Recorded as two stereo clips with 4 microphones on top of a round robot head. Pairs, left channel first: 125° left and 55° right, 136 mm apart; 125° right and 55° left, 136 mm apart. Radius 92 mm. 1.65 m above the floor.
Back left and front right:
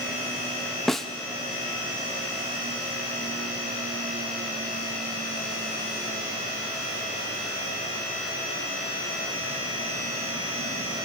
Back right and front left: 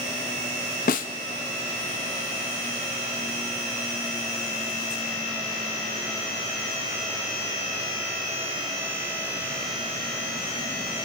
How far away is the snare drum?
About 0.5 m.